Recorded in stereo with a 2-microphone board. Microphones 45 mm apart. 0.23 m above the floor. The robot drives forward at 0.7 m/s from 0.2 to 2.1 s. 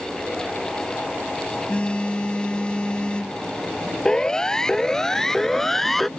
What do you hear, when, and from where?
1.7 s a phone buzzing: 30° left (ahead or behind); by 3.4 s 25° left (ahead or behind)
4.0 s a siren: 15° left (ahead or behind); by 6.1 s 5° left (ahead or behind)